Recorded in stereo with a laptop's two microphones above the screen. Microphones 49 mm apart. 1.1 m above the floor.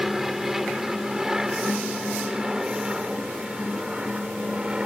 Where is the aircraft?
5° right (ahead or behind); by 4.9 s 20° right (ahead or behind).